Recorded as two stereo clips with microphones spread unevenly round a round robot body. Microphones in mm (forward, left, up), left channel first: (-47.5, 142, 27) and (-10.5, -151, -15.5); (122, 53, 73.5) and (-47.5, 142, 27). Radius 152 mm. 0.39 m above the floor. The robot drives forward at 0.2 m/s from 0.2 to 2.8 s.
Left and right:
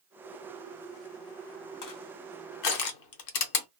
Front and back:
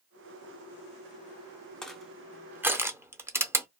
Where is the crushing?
70° left, 0.8 m; by 3.7 s 85° left, 0.8 m.